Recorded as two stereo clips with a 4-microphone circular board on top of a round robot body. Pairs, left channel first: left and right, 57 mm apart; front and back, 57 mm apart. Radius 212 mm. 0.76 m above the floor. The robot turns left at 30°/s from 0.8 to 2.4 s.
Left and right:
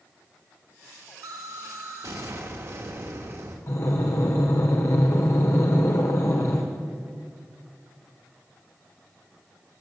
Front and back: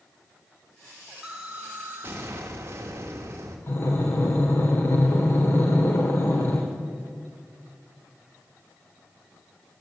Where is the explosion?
100° right, 0.7 m; by 3.6 s 135° right, 0.7 m.